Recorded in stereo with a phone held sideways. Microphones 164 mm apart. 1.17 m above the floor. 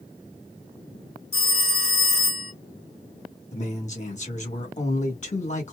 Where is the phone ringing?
80° left, 1.1 m.